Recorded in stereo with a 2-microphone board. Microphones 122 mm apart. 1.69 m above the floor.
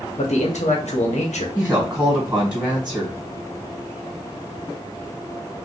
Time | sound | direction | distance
0.2 | a man speaking | 70° left (ahead or behind) | 1.0 m
1.6 | a woman speaking | 10° right (ahead or behind) | 1.4 m